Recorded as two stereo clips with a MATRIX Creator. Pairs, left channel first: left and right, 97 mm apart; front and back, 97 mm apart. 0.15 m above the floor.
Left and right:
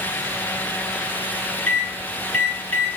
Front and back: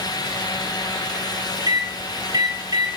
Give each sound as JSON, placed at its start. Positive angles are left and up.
{"t": 1.7, "sound": "a microwave", "azimuth_deg": 160, "distance_m": 1.9}